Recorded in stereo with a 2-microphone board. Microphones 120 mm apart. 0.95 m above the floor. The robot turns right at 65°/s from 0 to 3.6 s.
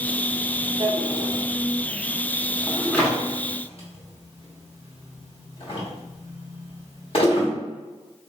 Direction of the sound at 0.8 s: 50° right (ahead or behind).